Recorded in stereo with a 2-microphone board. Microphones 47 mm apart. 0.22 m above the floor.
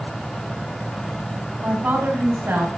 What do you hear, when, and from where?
1.6 s a woman speaking: 45° right (ahead or behind), 2.0 m; by 2.7 s 50° right (ahead or behind), 2.5 m